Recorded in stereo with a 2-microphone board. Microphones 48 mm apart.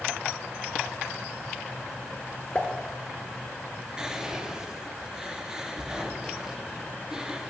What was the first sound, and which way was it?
A pop, 25° left (ahead or behind).